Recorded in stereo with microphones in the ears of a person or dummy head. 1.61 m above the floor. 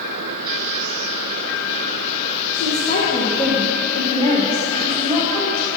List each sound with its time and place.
2.5 s a woman speaking: 55° left (ahead or behind), 2 m; by 5.7 s 5° left (ahead or behind), 3 m